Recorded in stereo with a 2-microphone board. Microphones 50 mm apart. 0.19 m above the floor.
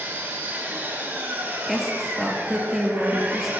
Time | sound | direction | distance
0.0 | an engine running | 40° right (ahead or behind) | 5 m
1.7 | a woman speaking | 5° right (ahead or behind) | 3.5 m